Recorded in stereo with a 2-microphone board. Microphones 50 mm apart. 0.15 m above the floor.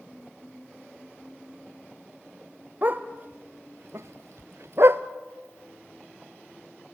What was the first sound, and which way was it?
A dog barking, 40° right (ahead or behind).